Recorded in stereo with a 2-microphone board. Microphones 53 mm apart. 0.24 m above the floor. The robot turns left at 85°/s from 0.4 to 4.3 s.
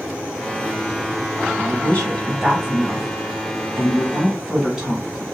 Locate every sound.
1.6 s a woman speaking: 45° left (ahead or behind), 1.4 m; by 5.2 s 15° right (ahead or behind), 1.4 m